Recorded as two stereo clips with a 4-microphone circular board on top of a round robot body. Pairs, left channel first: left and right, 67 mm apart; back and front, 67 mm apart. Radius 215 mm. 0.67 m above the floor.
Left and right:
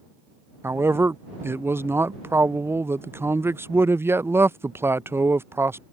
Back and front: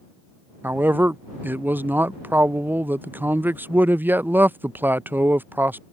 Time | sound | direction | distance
0.6 | a man speaking | 50° right | ?